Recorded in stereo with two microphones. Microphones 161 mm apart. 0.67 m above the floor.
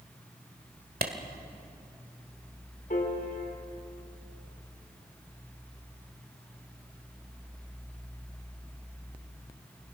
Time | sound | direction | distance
1.0 | a clap | 75° right (ahead or behind) | 1.8 m
2.9 | a piano | 65° left (ahead or behind) | 2.5 m